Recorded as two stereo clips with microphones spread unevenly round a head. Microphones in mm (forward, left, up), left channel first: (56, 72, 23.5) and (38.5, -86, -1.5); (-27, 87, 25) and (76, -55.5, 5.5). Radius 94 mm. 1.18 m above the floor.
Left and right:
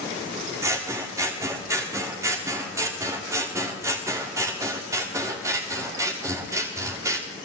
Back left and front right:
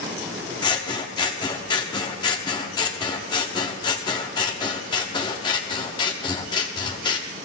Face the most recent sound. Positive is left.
turn(degrees=-175)